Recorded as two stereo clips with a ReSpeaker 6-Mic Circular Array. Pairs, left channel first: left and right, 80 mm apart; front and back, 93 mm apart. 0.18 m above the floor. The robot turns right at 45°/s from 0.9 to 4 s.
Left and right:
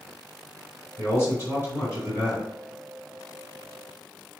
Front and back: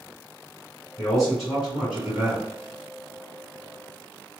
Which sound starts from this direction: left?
A man speaking, at 1.0 s.